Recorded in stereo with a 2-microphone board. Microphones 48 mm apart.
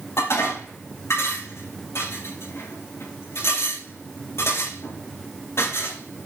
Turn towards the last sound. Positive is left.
turn(degrees=65)  # may be behind; listen again after turning